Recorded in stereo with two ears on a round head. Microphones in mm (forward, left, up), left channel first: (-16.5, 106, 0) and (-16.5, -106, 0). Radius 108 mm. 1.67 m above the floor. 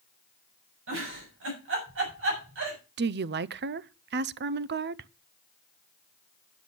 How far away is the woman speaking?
About 0.5 m.